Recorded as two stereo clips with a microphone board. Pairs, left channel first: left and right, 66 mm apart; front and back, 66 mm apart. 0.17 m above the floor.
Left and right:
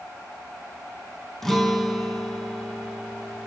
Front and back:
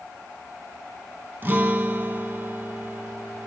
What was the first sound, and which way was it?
A guitar, 170° left.